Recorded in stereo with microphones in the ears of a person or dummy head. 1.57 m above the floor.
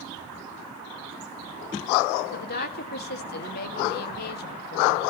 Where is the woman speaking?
55° left (ahead or behind), 1.3 m.